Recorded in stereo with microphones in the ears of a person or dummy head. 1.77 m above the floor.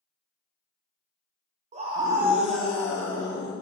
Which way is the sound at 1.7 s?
40° right (ahead or behind).